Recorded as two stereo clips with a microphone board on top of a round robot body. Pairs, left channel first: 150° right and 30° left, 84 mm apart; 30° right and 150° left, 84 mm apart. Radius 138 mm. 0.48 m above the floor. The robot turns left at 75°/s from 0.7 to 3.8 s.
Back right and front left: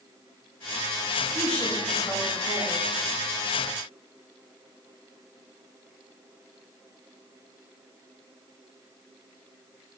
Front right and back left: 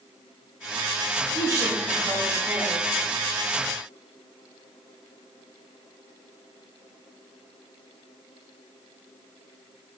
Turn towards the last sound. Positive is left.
turn(degrees=115)